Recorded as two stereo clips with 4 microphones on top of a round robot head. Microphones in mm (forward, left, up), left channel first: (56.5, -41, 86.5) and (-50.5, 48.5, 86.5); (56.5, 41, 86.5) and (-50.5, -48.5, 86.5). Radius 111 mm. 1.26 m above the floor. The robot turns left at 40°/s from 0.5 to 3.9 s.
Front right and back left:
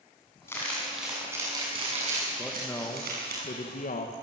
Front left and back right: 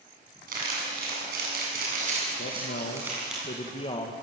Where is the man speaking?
50° left, 2.0 m; by 4.1 s 15° right, 2.0 m.